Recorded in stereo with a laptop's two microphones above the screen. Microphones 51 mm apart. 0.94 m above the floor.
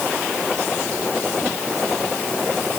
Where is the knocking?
I don't hear knocking.